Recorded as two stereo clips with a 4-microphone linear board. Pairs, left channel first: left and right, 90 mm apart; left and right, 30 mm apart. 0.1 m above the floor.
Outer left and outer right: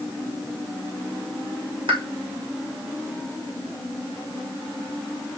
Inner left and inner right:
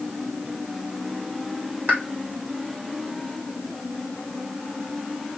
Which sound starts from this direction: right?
A pop, at 1.9 s.